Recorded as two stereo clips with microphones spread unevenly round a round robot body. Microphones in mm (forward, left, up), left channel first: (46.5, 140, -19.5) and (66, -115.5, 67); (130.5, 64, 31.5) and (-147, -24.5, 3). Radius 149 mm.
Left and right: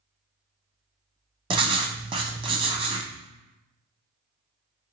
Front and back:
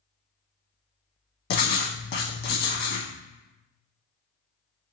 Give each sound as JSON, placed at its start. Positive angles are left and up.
{"t": 1.5, "sound": "writing", "azimuth_deg": -30, "distance_m": 0.5}